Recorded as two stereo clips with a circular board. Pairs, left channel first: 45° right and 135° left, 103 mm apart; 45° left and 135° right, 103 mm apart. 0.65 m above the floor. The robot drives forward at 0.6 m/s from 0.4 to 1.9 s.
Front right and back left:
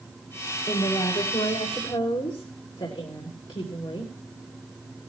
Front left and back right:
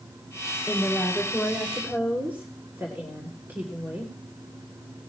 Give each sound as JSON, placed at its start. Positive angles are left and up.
{"t": 0.7, "sound": "a woman speaking", "azimuth_deg": -50, "distance_m": 3.0}